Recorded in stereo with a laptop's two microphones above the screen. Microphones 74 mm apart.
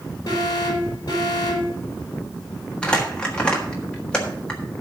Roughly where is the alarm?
Left.